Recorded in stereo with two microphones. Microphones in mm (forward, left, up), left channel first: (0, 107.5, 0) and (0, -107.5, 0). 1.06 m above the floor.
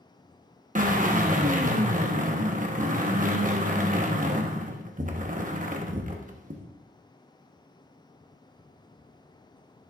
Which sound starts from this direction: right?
A drill, at 0.8 s.